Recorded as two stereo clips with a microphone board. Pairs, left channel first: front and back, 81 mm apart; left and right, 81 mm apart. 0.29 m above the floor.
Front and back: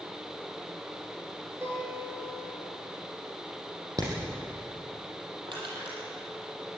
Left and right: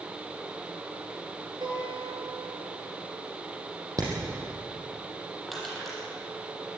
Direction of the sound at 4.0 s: 135° right.